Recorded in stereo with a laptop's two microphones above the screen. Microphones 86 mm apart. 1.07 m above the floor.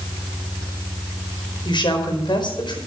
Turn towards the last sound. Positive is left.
turn(degrees=55)  # may be behind; listen again after turning